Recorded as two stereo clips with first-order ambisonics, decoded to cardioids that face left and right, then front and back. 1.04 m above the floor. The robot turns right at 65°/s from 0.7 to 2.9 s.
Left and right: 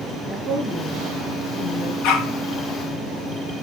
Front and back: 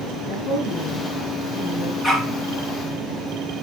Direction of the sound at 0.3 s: Straight ahead.